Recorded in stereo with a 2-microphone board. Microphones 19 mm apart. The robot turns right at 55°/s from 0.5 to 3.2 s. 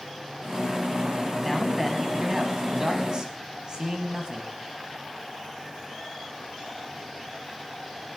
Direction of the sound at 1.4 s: 170° left.